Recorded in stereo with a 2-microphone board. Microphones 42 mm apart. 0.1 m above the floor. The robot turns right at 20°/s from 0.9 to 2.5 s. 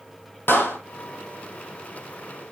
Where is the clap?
65° left (ahead or behind), 3 m.